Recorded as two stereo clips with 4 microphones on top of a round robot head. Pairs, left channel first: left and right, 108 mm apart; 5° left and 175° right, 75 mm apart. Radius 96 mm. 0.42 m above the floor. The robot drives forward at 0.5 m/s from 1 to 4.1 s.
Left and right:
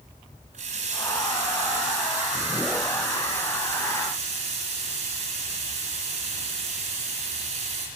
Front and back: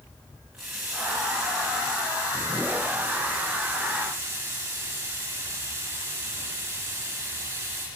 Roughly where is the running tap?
Right.